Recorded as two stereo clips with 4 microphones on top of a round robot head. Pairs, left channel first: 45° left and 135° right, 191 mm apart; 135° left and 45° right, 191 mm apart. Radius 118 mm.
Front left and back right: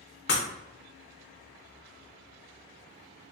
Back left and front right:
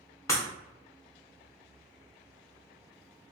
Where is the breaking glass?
65° left, 0.5 m.